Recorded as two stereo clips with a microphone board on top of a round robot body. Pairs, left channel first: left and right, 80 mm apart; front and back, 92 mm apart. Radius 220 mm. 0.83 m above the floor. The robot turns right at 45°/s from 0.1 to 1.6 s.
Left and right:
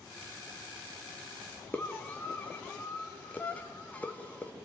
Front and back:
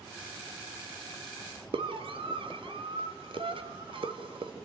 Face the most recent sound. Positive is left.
turn(degrees=160)